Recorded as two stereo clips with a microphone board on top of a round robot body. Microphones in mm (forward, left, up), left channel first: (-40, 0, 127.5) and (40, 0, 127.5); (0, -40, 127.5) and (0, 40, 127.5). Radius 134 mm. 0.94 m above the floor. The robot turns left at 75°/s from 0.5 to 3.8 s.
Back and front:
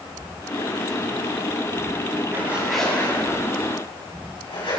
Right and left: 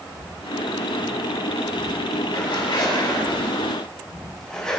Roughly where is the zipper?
Ahead right.